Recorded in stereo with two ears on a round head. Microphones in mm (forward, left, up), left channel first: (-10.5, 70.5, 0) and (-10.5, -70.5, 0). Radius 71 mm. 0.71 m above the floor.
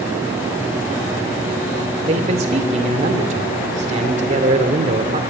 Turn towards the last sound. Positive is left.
turn(degrees=-45)  # may be behind; listen again after turning